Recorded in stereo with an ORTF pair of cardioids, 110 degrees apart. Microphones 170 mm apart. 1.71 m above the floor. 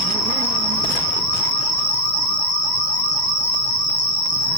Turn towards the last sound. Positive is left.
turn(degrees=15)